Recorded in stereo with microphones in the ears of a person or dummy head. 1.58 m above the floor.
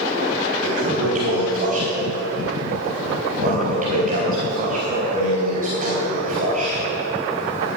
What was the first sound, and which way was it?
A toilet flushing, 40° right (ahead or behind).